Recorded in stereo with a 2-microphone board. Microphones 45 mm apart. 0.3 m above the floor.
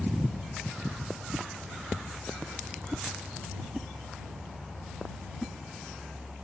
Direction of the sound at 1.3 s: 5° right (ahead or behind).